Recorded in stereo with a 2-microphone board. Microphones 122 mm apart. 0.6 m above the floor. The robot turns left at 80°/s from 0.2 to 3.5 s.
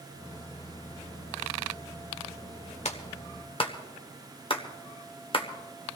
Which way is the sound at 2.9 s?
65° left (ahead or behind).